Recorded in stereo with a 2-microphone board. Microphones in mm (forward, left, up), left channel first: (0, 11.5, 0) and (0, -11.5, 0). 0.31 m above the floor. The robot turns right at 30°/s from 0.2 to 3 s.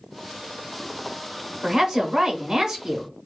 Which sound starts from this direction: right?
A woman speaking, at 1.6 s.